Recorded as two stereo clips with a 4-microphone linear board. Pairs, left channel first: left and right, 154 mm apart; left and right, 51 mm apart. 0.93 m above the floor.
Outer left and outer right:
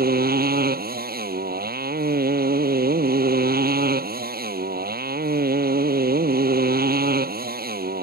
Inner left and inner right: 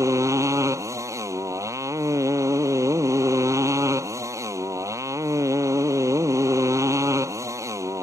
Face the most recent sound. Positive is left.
turn(degrees=-85)